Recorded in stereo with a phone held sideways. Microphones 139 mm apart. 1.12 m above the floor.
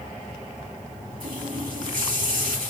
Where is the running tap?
85° right, 2.5 m.